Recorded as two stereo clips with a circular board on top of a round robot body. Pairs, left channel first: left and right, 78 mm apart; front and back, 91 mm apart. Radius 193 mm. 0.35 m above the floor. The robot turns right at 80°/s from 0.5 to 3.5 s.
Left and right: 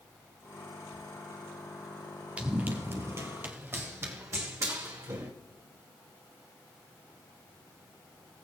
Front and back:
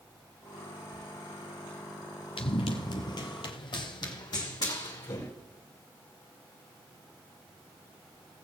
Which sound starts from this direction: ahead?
Running footsteps, at 2.4 s.